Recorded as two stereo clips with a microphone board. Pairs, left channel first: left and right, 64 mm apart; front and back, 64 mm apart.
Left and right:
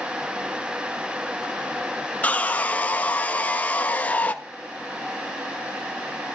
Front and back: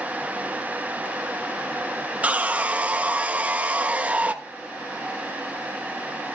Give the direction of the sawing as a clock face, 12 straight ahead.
8 o'clock.